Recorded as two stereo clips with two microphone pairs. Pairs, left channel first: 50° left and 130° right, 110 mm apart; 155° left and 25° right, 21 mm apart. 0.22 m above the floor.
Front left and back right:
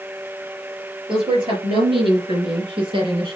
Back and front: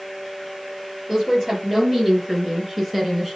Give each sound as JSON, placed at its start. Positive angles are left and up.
{"t": 1.1, "sound": "a woman speaking", "azimuth_deg": -95, "distance_m": 5.0}